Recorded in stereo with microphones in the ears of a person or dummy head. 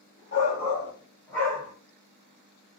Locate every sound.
0.3 s a shout: 30° left (ahead or behind), 1.2 m; by 1.7 s 10° right (ahead or behind), 1.3 m